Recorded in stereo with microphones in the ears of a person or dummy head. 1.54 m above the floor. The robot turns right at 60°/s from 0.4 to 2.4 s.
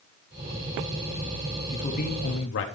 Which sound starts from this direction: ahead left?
A man speaking, at 1.7 s.